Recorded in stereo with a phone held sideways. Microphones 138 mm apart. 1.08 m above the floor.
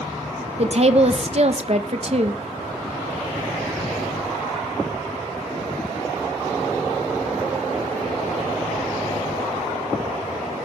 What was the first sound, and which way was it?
A woman speaking, 50° right (ahead or behind).